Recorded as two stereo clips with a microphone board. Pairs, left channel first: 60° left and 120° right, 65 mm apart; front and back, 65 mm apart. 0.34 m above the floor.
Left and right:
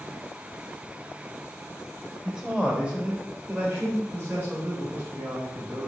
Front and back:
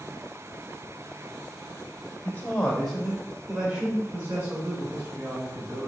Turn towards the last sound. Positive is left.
turn(degrees=-175)